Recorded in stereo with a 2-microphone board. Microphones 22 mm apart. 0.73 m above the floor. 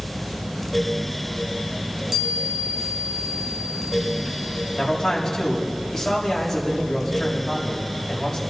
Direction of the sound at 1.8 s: 20° right (ahead or behind).